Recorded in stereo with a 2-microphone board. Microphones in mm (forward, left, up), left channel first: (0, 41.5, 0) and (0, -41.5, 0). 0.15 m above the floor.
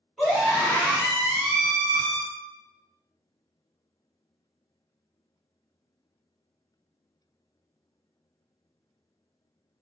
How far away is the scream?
About 1.6 m.